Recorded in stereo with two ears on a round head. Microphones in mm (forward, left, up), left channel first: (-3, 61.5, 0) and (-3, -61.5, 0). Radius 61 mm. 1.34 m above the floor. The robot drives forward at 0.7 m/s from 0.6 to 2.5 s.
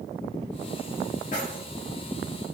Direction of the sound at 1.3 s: 60° left (ahead or behind).